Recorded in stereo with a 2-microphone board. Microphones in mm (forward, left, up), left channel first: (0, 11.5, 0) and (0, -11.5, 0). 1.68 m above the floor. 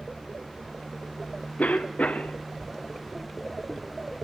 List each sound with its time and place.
1.6 s a cough: 75° left (ahead or behind), 0.6 m